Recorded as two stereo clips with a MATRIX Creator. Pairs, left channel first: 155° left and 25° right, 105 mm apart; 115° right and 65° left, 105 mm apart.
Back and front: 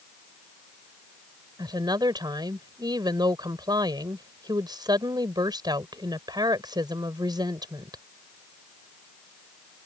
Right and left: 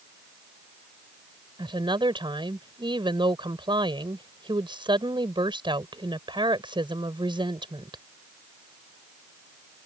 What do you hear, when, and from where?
1.6 s a woman speaking: 25° left